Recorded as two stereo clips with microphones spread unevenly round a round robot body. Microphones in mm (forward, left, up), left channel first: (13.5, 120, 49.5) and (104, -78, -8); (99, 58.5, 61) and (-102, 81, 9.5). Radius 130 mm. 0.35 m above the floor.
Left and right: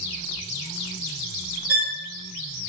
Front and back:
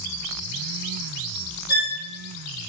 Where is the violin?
85° right, 1.0 m.